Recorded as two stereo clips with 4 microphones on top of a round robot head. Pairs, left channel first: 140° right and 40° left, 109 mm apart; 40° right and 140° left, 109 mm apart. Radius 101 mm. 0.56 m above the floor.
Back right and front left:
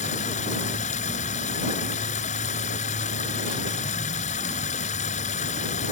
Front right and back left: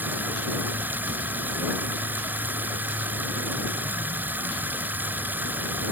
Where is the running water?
145° right.